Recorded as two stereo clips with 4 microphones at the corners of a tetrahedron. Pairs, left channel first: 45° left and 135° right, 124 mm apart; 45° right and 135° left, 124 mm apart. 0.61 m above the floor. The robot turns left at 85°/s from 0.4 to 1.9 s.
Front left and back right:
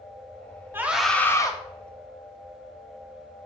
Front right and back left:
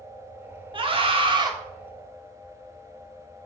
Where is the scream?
160° left, 1.1 m; by 1.5 s 90° left, 1.1 m.